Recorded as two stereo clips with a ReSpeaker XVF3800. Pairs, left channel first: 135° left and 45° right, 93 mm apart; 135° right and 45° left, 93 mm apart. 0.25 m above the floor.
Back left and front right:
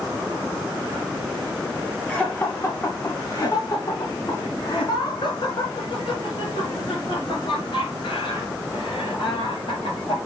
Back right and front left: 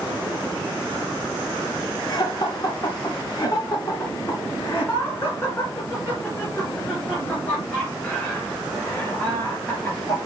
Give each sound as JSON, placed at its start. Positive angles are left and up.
{"t": 2.1, "sound": "laughter", "azimuth_deg": -150, "distance_m": 1.7}